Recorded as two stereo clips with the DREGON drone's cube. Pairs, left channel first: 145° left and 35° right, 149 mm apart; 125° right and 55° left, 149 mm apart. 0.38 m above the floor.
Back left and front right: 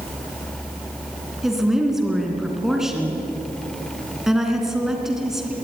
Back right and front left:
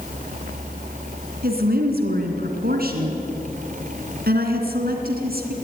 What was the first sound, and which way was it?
A woman speaking, 55° left.